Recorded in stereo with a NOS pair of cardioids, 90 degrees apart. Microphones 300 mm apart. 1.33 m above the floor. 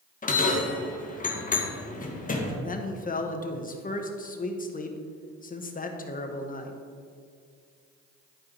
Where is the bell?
25° left, 1.5 m.